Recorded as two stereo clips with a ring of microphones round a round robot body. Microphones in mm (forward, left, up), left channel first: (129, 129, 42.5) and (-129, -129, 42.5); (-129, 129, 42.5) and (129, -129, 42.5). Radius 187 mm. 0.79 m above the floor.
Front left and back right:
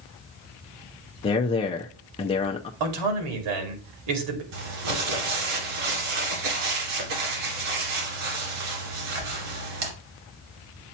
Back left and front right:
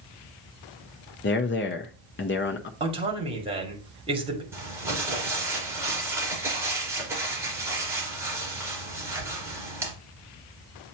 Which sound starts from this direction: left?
A man speaking, at 1.2 s.